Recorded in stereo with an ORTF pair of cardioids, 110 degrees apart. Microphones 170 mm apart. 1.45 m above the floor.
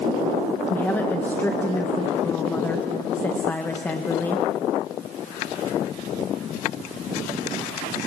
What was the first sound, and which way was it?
A woman speaking, 10° left.